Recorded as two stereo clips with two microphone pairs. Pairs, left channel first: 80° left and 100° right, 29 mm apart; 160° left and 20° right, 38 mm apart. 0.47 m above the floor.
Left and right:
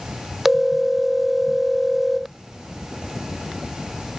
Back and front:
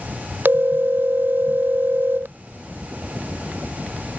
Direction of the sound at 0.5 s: 20° right.